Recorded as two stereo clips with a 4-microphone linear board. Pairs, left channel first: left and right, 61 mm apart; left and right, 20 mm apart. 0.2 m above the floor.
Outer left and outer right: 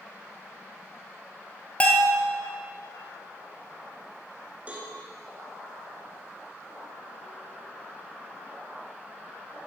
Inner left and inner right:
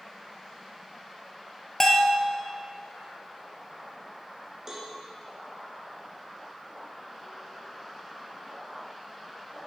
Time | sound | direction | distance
1.8 | a bell | 20° left (ahead or behind) | 1.3 m
4.7 | a cowbell | 25° right (ahead or behind) | 2.0 m